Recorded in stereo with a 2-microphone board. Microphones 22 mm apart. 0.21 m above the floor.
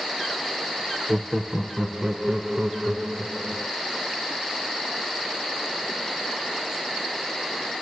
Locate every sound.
1.1 s laughter: 15° right (ahead or behind), 1.0 m; by 3.7 s 55° right (ahead or behind), 2 m